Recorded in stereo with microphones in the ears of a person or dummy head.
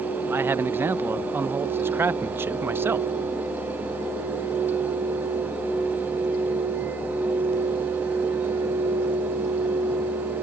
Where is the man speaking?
10° right (ahead or behind).